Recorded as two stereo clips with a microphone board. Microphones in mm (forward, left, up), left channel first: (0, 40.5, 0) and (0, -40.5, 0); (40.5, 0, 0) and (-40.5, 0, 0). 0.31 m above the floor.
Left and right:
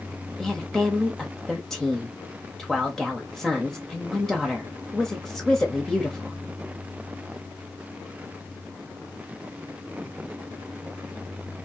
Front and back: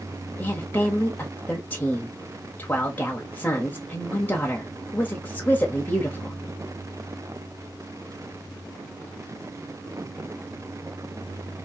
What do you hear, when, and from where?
0.4 s a woman speaking: 10° left, 0.9 m